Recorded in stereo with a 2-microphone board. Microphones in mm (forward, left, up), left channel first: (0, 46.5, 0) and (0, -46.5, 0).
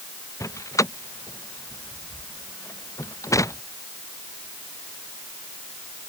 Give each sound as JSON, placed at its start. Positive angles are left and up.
{"t": 0.4, "sound": "a door slam", "side_deg": 35}